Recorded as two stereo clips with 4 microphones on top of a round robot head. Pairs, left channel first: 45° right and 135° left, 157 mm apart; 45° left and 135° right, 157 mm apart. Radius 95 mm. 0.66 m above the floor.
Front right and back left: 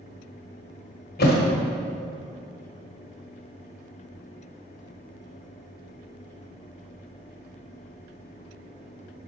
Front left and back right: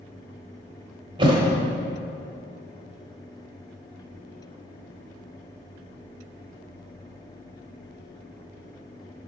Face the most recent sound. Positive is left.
turn(degrees=-70)